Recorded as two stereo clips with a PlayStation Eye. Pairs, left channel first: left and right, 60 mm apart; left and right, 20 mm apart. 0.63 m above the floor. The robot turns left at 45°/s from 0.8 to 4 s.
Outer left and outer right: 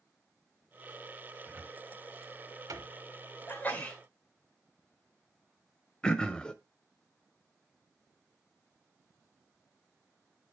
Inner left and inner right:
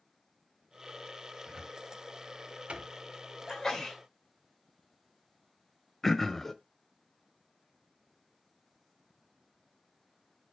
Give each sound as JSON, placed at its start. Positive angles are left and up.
{"t": 1.5, "sound": "a cupboard door", "side_deg": -30, "distance_m": 1.0}
{"t": 3.5, "sound": "a sneeze", "side_deg": 35, "distance_m": 2.0}
{"t": 6.0, "sound": "throat clearing", "side_deg": 15, "distance_m": 0.6}